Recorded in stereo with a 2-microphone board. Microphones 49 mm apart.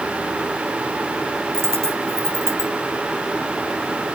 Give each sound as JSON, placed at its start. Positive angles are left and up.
{"t": 1.5, "sound": "a dropped coin", "side_deg": -60, "distance_m": 1.3}